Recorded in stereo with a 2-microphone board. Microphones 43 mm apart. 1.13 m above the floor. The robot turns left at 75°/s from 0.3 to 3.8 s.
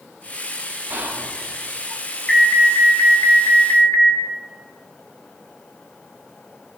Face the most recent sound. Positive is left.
turn(degrees=45)